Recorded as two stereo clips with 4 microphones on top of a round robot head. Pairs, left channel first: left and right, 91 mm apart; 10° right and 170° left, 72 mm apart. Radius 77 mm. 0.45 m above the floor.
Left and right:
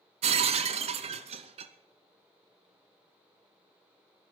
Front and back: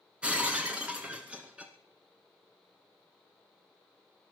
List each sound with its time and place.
0.2 s breaking glass: 105° right, 0.8 m